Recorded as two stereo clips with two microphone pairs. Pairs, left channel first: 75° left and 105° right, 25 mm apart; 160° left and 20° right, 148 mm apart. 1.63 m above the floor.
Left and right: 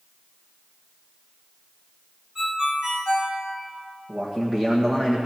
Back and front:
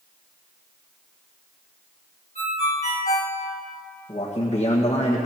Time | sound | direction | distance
2.4 | a ringtone | 165° right | 3.5 m
4.1 | a man speaking | 160° right | 1.6 m